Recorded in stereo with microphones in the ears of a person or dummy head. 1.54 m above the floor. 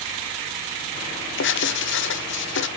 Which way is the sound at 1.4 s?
60° left (ahead or behind).